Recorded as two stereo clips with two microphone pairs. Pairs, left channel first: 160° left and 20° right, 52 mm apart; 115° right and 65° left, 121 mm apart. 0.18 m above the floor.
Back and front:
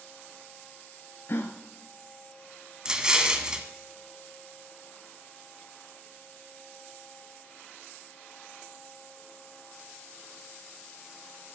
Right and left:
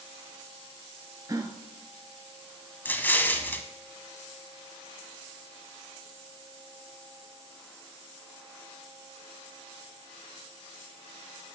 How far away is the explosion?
About 0.9 m.